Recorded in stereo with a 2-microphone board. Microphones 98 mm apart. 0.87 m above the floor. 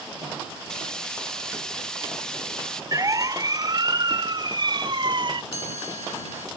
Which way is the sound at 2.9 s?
35° right (ahead or behind).